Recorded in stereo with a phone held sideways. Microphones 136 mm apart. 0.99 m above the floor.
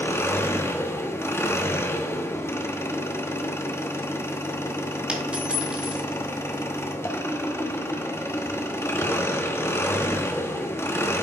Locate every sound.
0.0 s an engine running: 15° left (ahead or behind), 0.9 m
5.1 s a dropped coin: 5° right (ahead or behind), 1.8 m